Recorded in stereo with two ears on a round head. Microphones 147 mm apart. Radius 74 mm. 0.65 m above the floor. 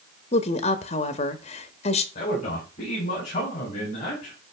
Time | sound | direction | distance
0.3 | a woman speaking | 40° left (ahead or behind) | 0.9 m
2.1 | a man speaking | 45° left (ahead or behind) | 4 m